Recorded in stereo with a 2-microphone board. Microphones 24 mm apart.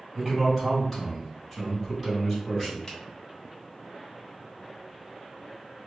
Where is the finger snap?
25° left (ahead or behind), 1.0 m.